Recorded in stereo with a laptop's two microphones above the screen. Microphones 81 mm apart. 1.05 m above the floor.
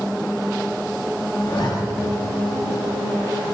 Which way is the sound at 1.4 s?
60° left (ahead or behind).